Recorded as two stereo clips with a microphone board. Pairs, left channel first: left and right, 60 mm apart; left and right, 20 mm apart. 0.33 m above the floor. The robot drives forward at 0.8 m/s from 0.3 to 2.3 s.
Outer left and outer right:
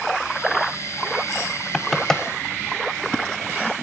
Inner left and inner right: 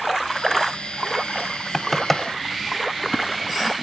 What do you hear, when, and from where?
1.7 s knocking: 5° left (ahead or behind), 1.0 m; by 2.2 s 10° left (ahead or behind), 0.7 m